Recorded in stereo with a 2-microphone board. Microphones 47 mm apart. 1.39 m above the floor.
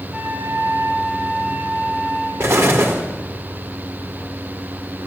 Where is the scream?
I don't hear a scream.